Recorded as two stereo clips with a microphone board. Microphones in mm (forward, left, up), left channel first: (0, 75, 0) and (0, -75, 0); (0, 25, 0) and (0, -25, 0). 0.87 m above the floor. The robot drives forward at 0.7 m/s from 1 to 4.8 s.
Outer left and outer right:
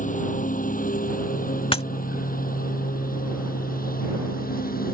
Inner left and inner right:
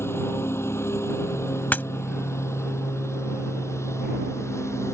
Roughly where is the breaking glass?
Left.